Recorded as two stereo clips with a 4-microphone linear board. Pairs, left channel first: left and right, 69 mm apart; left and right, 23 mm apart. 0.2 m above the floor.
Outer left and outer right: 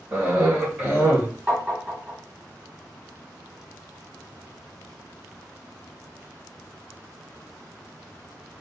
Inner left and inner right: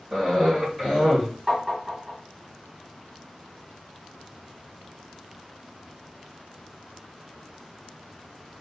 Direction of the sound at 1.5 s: 20° right (ahead or behind).